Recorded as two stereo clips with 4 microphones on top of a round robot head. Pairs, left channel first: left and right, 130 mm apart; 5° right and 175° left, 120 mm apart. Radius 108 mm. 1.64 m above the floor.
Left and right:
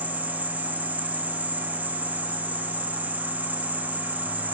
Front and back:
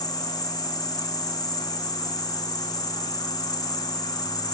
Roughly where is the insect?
Ahead.